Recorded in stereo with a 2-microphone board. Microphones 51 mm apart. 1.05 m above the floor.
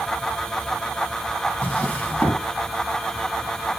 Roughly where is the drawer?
Left.